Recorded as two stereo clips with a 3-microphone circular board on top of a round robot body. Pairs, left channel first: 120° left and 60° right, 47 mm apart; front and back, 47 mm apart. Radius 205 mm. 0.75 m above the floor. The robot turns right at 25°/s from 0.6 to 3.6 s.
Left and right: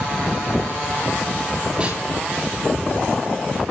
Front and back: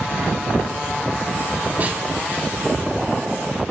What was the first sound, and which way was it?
A snare drum, 130° right.